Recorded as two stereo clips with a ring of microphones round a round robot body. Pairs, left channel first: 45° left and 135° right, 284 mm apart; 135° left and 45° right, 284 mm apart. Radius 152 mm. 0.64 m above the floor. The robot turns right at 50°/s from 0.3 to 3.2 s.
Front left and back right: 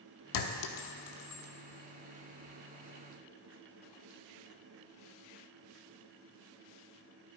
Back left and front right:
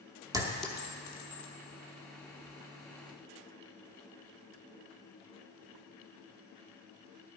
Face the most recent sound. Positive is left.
turn(degrees=175)